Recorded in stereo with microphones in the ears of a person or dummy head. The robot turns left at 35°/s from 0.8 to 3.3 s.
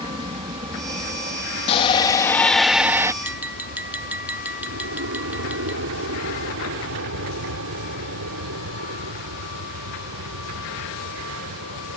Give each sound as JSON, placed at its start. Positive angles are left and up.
{"t": 0.0, "sound": "an aircraft", "side_deg": -30}
{"t": 1.7, "sound": "a shout", "azimuth_deg": 35}
{"t": 3.2, "sound": "tapping", "side_deg": -10}